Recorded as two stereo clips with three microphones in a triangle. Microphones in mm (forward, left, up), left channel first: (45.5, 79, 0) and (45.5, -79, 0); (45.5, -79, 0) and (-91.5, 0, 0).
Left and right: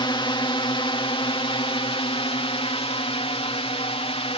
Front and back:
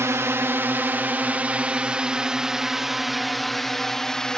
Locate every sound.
0.0 s a drone: 95° left; by 4.4 s 55° left